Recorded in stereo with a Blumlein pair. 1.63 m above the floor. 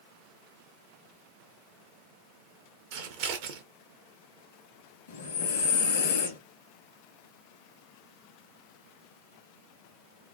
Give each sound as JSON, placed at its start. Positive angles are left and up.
{"t": 2.9, "sound": "scissors", "azimuth_deg": -45, "distance_m": 0.6}
{"t": 5.1, "sound": "breathing", "azimuth_deg": 60, "distance_m": 0.8}